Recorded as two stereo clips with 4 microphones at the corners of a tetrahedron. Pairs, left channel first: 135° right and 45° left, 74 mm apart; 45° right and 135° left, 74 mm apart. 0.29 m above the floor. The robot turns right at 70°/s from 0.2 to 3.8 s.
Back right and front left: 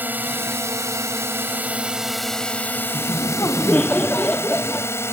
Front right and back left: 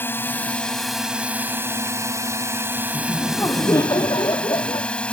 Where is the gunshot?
I don't hear a gunshot.